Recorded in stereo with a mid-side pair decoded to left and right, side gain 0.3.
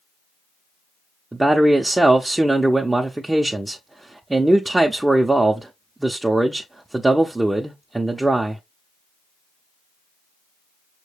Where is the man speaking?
25° right, 0.6 m.